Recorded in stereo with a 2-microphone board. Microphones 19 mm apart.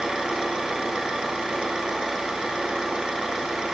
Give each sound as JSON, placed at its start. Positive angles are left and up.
{"t": 0.0, "sound": "an engine running", "side_deg": -55, "distance_m": 1.9}